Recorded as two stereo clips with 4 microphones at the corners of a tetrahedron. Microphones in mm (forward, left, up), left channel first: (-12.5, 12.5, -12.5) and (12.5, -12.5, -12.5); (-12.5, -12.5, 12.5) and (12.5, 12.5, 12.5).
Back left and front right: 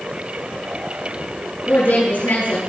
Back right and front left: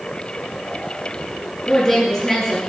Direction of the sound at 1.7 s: 150° left.